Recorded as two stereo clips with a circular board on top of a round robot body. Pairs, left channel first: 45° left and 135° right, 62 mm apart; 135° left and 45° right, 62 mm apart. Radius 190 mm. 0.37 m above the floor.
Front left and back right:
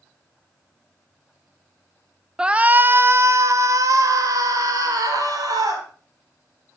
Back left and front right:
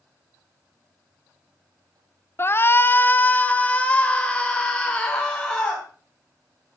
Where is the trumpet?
I don't hear a trumpet.